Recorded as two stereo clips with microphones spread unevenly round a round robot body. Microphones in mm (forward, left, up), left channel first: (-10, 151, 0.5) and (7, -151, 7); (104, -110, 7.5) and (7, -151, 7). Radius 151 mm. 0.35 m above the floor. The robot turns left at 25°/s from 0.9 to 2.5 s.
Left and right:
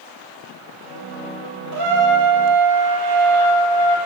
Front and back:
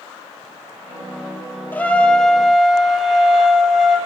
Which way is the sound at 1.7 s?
50° right.